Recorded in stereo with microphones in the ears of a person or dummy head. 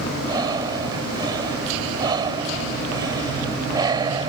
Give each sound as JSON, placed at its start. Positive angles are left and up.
{"t": 0.2, "sound": "breathing", "side_deg": -25}